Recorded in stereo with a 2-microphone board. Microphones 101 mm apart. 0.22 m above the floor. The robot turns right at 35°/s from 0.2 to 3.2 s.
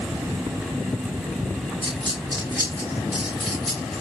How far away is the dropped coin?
About 9.5 m.